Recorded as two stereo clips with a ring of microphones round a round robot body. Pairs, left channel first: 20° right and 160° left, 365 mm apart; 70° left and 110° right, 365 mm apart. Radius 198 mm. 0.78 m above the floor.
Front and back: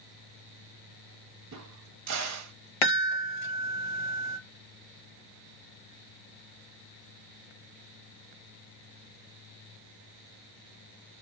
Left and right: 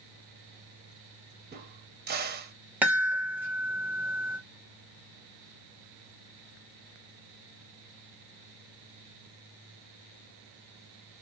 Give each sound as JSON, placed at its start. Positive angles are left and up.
{"t": 1.5, "sound": "a crack", "azimuth_deg": -170, "distance_m": 0.9}
{"t": 2.8, "sound": "a chime", "azimuth_deg": -30, "distance_m": 1.0}